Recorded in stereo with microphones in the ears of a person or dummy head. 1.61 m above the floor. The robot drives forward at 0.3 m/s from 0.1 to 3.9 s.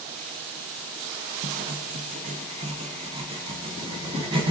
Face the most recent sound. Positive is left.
turn(degrees=-25)  # may be behind; listen again after turning